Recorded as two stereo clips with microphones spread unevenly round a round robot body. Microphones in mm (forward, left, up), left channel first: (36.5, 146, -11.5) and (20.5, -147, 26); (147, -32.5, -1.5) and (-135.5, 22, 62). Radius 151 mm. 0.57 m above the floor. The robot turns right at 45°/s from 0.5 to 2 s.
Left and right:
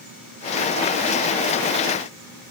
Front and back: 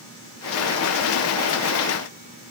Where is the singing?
I don't hear singing.